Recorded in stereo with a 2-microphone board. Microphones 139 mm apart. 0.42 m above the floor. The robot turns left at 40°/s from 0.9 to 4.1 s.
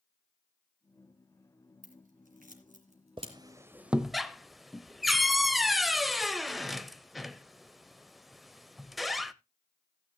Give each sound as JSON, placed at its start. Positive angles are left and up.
{"t": 1.8, "sound": "scissors", "side_deg": -75, "distance_m": 2.5}
{"t": 3.2, "sound": "a squeak", "side_deg": -35, "distance_m": 0.5}